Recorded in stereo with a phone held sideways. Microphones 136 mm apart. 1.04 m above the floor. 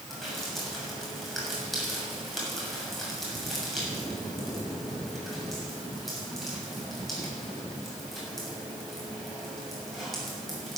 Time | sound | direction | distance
0.1 | dripping | centre (ahead or behind) | 6.5 m